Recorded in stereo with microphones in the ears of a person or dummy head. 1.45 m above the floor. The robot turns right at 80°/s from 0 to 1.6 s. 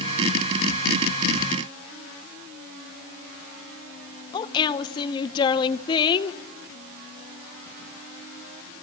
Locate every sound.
4.3 s a woman speaking: 25° left (ahead or behind), 0.8 m